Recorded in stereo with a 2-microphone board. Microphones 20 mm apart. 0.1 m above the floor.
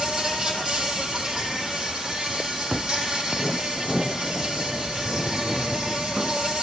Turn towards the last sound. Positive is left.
turn(degrees=-35)  # may be behind; listen again after turning